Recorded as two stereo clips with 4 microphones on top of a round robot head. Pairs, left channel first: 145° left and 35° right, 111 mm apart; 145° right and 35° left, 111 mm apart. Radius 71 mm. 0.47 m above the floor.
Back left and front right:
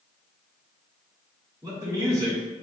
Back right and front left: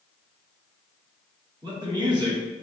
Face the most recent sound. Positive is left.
turn(degrees=10)